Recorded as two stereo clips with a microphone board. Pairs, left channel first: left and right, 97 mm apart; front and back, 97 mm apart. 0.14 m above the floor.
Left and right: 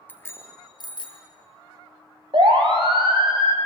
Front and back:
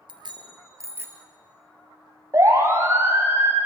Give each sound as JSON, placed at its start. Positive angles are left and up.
{"t": 0.1, "sound": "a bicycle bell", "azimuth_deg": 160, "distance_m": 2.0}
{"t": 2.3, "sound": "a siren", "azimuth_deg": -120, "distance_m": 4.5}